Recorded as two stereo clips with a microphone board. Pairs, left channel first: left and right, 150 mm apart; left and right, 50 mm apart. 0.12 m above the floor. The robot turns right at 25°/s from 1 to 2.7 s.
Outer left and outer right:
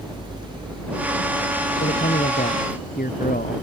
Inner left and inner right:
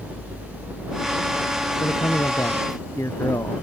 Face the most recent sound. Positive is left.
turn(degrees=75)  # may be behind; listen again after turning